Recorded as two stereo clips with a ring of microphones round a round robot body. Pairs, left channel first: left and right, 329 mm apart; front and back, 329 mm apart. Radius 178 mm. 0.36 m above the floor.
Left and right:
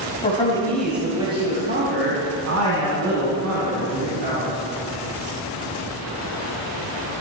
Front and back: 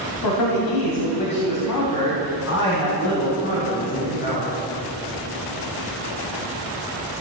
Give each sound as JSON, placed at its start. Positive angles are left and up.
{"t": 0.2, "sound": "a man speaking", "azimuth_deg": 20, "distance_m": 2.5}